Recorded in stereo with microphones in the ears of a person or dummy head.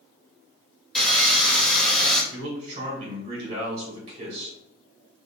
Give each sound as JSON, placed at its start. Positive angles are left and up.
{"t": 0.9, "sound": "sawing", "side_deg": -5, "distance_m": 1.4}
{"t": 2.3, "sound": "a man speaking", "side_deg": -45, "distance_m": 1.7}